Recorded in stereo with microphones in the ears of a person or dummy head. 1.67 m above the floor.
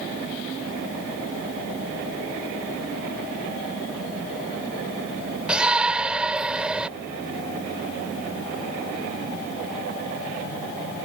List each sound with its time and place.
5.5 s a shout: centre (ahead or behind)